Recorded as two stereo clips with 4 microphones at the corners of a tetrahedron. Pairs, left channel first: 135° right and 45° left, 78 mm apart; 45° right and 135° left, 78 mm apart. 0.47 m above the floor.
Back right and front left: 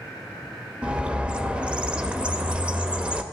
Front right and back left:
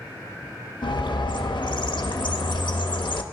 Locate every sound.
0.8 s a bird: 30° right, 0.5 m